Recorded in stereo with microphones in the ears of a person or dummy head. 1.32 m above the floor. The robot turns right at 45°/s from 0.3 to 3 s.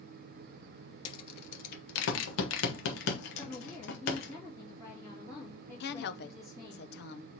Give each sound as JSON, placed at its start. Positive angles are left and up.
{"t": 1.1, "sound": "a rattle", "side_deg": 30, "distance_m": 0.9}
{"t": 3.4, "sound": "a woman speaking", "side_deg": 15, "distance_m": 2.0}
{"t": 5.8, "sound": "a woman speaking", "side_deg": 55, "distance_m": 0.5}